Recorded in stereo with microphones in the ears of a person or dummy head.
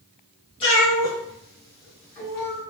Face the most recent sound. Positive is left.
turn(degrees=20)  # may be behind; listen again after turning